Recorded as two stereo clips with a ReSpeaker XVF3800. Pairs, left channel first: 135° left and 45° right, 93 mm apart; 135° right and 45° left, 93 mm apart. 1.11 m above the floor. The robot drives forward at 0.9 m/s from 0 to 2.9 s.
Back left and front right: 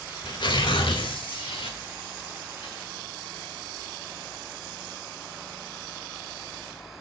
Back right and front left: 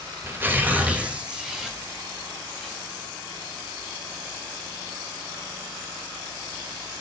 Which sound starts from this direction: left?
Tearing paper, at 0.2 s.